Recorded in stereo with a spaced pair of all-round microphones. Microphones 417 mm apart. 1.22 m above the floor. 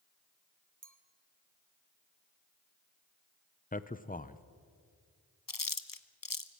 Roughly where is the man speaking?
Centre.